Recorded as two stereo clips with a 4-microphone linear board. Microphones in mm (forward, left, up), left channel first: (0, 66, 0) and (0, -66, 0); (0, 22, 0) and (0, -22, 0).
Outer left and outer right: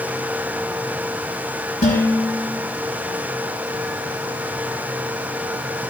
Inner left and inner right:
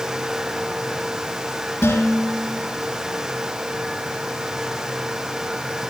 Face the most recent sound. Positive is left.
turn(degrees=80)